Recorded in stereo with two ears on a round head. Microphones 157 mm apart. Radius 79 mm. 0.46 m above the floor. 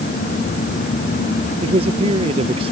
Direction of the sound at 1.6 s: 35° right (ahead or behind).